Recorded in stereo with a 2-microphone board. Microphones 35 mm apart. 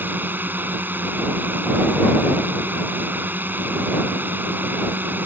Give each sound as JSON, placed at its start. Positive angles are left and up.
{"t": 0.0, "sound": "a drone", "side_deg": -75}